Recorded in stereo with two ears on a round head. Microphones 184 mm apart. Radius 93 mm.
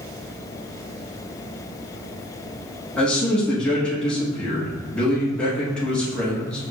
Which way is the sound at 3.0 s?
5° left (ahead or behind).